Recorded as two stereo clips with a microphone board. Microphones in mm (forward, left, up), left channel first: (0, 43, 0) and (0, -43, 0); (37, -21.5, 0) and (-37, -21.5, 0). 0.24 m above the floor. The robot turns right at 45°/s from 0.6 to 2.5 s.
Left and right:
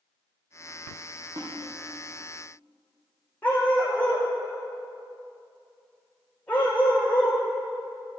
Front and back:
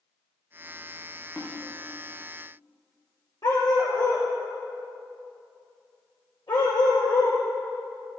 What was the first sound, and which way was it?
A snare drum, 70° right.